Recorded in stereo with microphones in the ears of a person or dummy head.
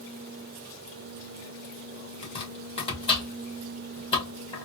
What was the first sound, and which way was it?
Chopping, 30° left (ahead or behind).